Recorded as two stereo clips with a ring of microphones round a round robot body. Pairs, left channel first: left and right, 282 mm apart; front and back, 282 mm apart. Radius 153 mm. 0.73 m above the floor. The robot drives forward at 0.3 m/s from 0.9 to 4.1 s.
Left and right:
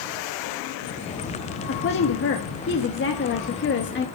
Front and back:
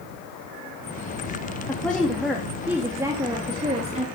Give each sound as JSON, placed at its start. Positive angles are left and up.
{"t": 1.7, "sound": "a woman speaking", "azimuth_deg": 80, "distance_m": 1.4}